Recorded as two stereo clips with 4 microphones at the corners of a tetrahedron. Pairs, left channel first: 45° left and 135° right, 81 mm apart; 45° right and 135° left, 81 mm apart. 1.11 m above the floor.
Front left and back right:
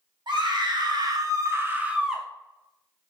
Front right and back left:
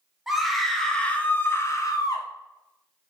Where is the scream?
140° right, 1.1 m; by 2.3 s 45° right, 0.8 m.